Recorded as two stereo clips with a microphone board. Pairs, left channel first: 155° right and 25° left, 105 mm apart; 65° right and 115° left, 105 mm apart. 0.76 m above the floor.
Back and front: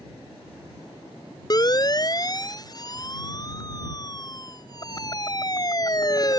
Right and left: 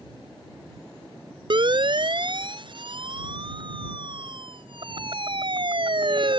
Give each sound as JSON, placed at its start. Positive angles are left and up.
{"t": 1.5, "sound": "a siren", "azimuth_deg": 150}